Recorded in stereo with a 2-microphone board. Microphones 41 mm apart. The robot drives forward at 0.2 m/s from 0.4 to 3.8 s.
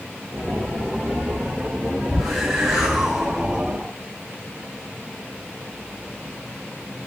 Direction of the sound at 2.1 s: 5° right (ahead or behind).